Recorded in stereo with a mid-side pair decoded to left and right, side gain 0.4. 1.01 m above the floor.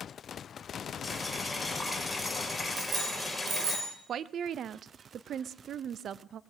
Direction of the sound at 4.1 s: 70° right.